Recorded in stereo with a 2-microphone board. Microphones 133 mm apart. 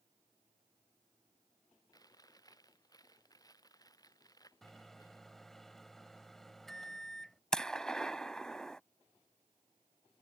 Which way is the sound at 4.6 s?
Centre (ahead or behind).